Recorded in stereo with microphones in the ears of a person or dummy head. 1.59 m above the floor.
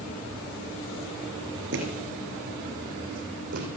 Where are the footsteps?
65° right (ahead or behind), 3.5 m; by 3.7 s 60° right (ahead or behind), 3 m.